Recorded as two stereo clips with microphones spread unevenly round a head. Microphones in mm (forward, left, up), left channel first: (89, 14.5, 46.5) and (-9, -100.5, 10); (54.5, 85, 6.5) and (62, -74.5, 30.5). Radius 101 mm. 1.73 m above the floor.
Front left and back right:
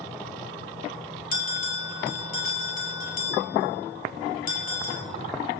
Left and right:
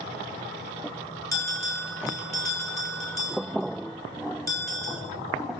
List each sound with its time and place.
1.3 s a bell: 20° left, 6 m